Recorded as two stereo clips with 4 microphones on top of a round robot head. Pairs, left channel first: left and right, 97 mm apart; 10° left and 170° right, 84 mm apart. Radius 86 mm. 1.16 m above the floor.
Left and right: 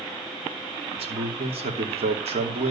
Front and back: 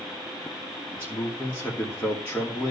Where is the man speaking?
70° right, 3 m.